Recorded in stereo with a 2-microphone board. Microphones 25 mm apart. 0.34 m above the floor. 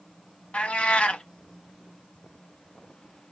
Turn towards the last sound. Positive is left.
turn(degrees=65)  # may be behind; listen again after turning